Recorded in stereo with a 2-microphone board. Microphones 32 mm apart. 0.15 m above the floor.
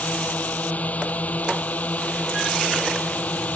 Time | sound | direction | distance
0.0 | a drone | 55° left (ahead or behind) | ?